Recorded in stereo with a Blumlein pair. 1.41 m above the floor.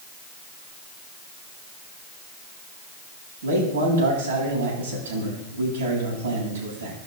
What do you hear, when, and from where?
3.4 s a man speaking: 65° right, 7 m